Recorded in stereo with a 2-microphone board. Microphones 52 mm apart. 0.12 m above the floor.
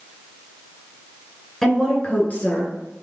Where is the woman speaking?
5° left (ahead or behind), 1.4 m; by 2.7 s 45° left (ahead or behind), 1.8 m.